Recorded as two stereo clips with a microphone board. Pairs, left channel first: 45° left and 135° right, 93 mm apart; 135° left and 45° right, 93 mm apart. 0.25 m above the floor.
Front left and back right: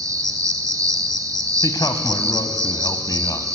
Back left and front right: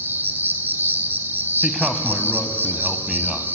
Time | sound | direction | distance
0.0 | an insect | 105° right | 1.4 m
1.6 | a man speaking | 35° left | 1.5 m